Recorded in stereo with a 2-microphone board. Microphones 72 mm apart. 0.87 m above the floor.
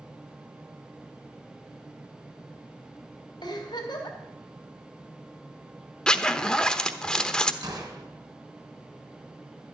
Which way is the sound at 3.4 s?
70° left (ahead or behind).